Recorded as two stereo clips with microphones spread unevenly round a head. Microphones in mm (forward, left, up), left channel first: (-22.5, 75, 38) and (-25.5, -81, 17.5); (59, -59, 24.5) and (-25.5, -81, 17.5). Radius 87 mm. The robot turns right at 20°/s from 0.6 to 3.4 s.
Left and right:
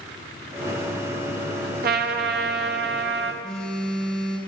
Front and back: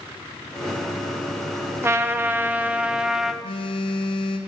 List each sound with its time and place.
1.8 s a trumpet: 110° right, 0.7 m; by 3.3 s 80° right, 0.7 m
3.4 s a phone buzzing: 5° left, 0.9 m